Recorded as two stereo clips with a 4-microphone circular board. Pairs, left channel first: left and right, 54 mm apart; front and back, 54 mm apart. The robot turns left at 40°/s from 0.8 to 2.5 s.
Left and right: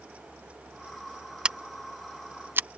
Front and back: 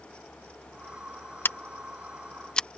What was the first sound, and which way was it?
Scissors, 25° right.